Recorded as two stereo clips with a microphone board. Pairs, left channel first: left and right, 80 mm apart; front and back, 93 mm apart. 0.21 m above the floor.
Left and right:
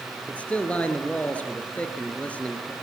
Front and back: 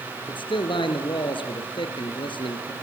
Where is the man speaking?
15° left, 3.5 m.